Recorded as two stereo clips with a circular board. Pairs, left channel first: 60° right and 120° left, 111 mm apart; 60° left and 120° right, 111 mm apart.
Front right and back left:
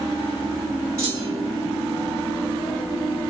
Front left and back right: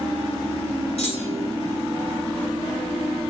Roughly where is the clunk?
Left.